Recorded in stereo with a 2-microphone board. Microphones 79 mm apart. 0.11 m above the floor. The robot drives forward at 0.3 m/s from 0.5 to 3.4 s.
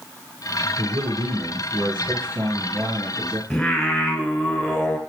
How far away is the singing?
About 0.9 m.